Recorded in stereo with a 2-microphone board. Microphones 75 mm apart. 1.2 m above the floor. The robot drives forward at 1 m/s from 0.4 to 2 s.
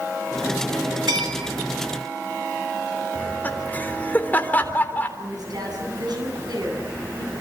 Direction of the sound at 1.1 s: 75° right (ahead or behind).